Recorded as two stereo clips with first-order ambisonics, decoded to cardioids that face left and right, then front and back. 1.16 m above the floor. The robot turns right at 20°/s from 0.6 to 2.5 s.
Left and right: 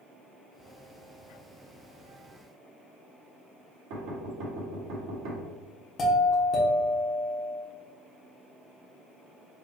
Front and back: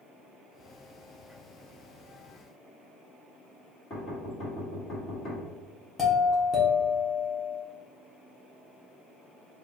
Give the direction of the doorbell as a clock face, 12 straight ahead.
10 o'clock.